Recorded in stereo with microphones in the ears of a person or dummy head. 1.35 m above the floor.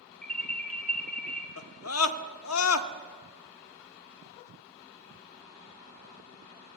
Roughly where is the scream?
Left.